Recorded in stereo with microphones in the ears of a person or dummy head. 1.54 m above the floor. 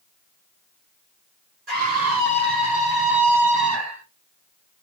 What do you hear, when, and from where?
1.7 s a scream: 45° right (ahead or behind), 3.5 m; by 4.0 s 25° right (ahead or behind), 3 m